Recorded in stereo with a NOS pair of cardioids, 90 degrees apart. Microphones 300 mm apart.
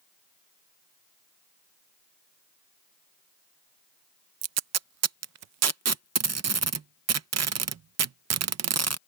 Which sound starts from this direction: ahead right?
Tape being pulled, at 4.4 s.